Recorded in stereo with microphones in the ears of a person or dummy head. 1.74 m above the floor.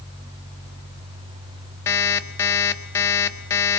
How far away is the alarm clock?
About 1.4 m.